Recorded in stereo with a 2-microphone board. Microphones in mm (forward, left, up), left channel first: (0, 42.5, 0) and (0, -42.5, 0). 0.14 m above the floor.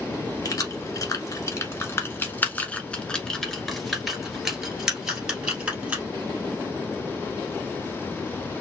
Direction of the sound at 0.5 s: 40° left (ahead or behind).